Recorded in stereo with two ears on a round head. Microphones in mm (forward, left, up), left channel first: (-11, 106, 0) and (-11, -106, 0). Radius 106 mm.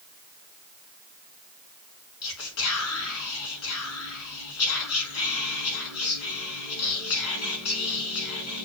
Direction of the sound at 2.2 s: 75° left (ahead or behind).